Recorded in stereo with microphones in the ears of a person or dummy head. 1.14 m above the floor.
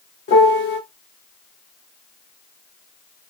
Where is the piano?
50° left (ahead or behind), 1.5 m.